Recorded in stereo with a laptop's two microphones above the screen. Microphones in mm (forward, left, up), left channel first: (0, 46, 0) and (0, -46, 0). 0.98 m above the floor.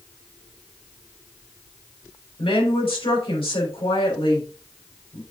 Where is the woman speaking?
80° left, 3.5 m.